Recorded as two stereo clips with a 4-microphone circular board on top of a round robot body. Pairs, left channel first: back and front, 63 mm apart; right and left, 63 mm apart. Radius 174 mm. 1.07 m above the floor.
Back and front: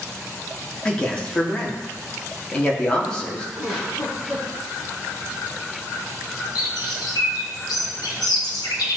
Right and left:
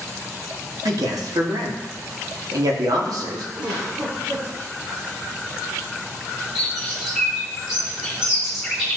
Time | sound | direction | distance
0.8 | a man speaking | 105° left | 2.5 m
3.6 | a giggle | 95° left | 4 m
6.5 | a bird | 175° left | 1.4 m